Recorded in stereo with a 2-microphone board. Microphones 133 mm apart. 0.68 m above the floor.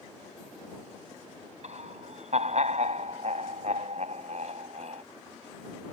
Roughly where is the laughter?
Right.